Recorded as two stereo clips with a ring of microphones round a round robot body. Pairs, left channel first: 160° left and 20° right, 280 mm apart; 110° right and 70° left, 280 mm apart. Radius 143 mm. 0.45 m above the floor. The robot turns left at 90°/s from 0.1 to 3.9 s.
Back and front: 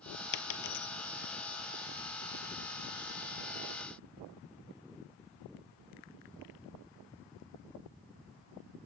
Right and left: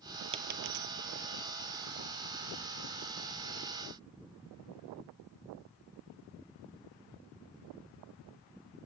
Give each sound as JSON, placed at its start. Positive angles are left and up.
{"t": 0.3, "sound": "a dropped coin", "azimuth_deg": 140, "distance_m": 0.9}